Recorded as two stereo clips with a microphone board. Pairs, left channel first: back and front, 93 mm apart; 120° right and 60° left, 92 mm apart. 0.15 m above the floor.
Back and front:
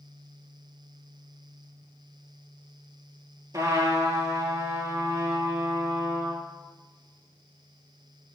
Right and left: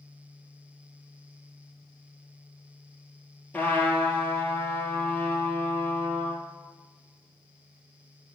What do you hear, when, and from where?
3.5 s a trumpet: 50° right, 1.8 m